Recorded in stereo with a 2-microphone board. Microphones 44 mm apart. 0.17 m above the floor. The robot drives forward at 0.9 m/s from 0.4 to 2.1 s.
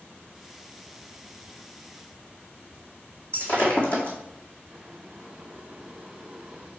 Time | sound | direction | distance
3.3 | breaking glass | 30° left (ahead or behind) | 1.9 m
4.7 | boiling | 20° right (ahead or behind) | 0.9 m